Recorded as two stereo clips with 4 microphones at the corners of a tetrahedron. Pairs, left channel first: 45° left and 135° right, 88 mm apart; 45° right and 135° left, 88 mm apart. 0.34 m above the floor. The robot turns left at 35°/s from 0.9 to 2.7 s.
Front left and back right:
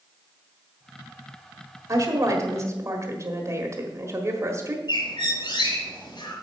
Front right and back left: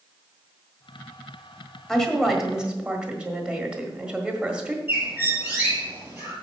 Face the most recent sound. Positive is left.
turn(degrees=65)